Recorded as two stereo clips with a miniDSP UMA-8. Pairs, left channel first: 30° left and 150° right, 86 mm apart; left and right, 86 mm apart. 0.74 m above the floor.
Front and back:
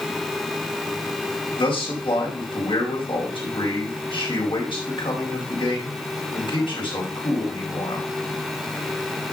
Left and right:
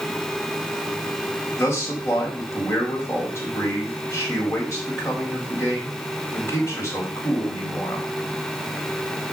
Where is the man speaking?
30° left, 5 m.